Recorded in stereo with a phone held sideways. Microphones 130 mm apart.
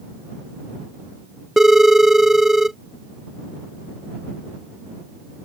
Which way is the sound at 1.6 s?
Centre (ahead or behind).